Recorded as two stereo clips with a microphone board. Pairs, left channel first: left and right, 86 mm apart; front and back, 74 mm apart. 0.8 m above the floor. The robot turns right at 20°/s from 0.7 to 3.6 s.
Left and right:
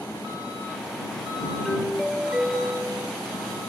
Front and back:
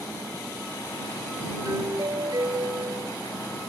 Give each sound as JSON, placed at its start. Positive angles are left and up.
{"t": 1.6, "sound": "a doorbell", "azimuth_deg": 175}